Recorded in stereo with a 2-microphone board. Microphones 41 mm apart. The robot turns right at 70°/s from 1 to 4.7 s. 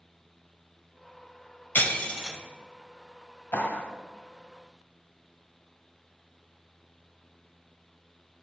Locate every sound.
1.8 s breaking glass: 130° left, 0.6 m; by 2.4 s 170° left, 0.6 m
3.5 s a clap: 65° left (ahead or behind), 1.3 m; by 3.9 s 50° left (ahead or behind), 1.3 m